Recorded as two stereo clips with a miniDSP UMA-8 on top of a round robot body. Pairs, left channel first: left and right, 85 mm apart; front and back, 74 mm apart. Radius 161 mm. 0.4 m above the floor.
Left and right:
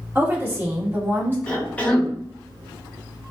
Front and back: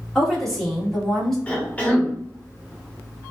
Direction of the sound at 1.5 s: 40° left.